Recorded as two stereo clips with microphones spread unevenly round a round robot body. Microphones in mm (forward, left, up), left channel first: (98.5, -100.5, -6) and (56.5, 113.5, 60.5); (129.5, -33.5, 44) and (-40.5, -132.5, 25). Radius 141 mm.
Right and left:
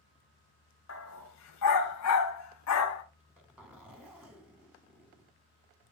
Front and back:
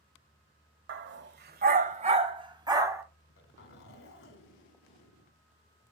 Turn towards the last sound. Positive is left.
turn(degrees=20)